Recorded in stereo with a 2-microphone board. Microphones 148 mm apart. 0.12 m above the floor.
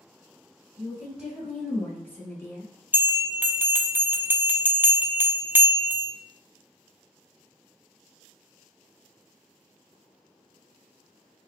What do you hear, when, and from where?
0.8 s a woman speaking: 15° right (ahead or behind), 1.3 m; by 2.7 s 25° left (ahead or behind), 1.4 m
2.9 s a bell: 15° right (ahead or behind), 0.5 m